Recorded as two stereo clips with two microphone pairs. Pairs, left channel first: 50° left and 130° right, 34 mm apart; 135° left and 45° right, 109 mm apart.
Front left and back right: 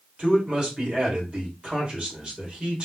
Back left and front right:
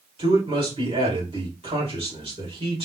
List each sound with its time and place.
0.2 s a man speaking: 65° right, 2.5 m